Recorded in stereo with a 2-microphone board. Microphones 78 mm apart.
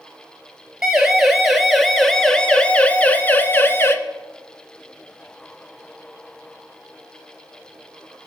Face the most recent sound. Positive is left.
turn(degrees=30)  # may be behind; listen again after turning